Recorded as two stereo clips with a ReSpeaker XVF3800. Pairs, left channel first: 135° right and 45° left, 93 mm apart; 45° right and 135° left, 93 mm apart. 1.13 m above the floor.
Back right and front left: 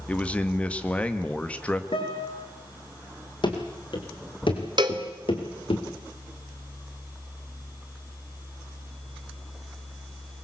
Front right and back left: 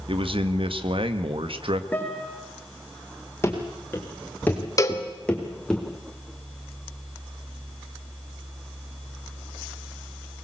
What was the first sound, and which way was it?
A man speaking, 150° left.